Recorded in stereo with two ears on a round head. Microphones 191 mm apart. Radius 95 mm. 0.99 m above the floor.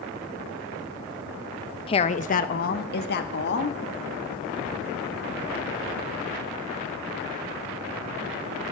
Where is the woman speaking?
25° left (ahead or behind), 0.7 m; by 3.8 s 55° left (ahead or behind), 2.0 m.